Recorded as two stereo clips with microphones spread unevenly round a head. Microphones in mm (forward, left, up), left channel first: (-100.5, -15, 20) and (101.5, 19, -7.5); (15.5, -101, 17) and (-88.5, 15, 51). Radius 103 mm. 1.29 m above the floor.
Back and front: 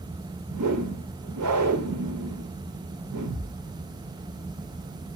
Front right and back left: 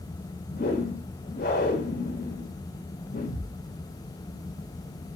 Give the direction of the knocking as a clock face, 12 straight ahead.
No knocking in this recording.